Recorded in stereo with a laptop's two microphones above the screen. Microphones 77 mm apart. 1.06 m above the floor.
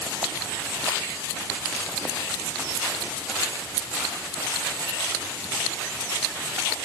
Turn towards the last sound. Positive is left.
No sound to turn to.